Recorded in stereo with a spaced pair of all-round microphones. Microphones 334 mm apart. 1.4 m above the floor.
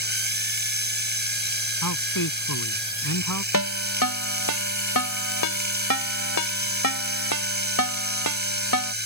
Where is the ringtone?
85° left.